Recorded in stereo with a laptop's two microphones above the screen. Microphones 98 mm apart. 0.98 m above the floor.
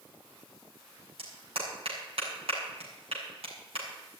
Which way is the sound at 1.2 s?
75° right (ahead or behind).